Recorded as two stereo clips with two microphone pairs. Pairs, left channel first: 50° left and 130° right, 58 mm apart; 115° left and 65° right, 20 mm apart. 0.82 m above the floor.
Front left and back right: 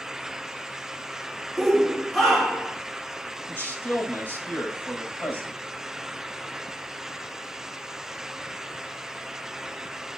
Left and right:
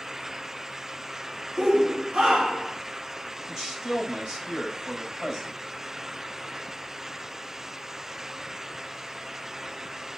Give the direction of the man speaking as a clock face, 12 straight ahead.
12 o'clock.